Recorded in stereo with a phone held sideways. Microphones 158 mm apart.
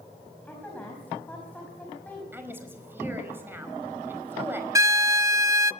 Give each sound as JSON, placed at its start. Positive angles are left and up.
{"t": 0.5, "sound": "a woman speaking", "side_deg": 10, "distance_m": 5.5}
{"t": 2.3, "sound": "a woman speaking", "side_deg": -15, "distance_m": 5.0}
{"t": 4.8, "sound": "a violin", "side_deg": -20, "distance_m": 0.7}